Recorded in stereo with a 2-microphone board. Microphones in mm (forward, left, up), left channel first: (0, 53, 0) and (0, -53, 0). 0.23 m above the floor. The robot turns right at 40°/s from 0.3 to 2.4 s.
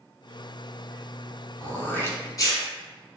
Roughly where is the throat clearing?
Ahead.